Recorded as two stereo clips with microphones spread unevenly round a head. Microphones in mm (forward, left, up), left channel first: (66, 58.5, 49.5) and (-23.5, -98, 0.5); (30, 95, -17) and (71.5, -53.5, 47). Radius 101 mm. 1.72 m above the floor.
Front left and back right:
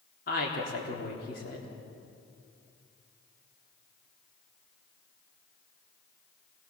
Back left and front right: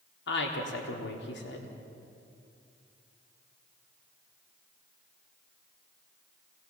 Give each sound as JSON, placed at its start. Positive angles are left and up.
{"t": 0.3, "sound": "a woman speaking", "azimuth_deg": 105, "distance_m": 3.5}